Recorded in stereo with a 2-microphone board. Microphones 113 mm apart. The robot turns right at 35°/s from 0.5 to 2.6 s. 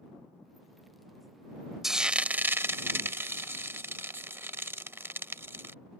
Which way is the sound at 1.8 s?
Centre (ahead or behind).